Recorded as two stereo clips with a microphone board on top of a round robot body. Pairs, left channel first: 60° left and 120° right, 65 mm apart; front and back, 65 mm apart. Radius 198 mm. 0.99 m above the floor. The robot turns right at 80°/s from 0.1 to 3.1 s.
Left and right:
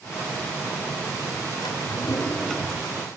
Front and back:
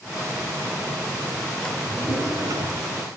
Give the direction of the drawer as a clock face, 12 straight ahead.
10 o'clock.